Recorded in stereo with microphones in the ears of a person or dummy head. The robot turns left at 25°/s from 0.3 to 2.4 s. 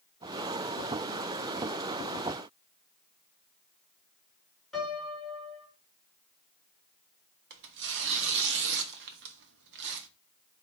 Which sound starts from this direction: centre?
A piano, at 4.7 s.